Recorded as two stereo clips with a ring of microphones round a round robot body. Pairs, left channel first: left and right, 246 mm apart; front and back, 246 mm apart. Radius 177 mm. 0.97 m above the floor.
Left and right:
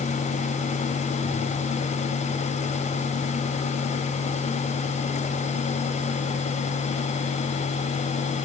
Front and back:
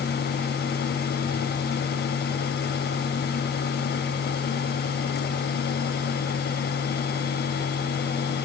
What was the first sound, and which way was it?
Only background noise.